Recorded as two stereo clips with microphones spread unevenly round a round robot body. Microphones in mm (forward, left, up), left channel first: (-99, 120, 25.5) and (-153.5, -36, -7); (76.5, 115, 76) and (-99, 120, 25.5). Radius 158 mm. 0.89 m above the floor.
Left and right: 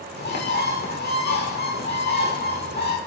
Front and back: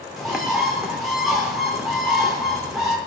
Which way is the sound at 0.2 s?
90° left.